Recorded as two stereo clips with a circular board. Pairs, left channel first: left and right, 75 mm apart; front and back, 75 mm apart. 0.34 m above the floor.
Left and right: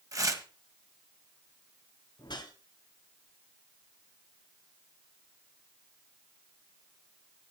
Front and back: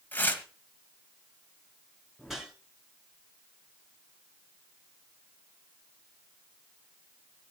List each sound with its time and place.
0.1 s tearing paper: 60° right, 1.5 m
2.2 s a whoosh: 95° left, 2.5 m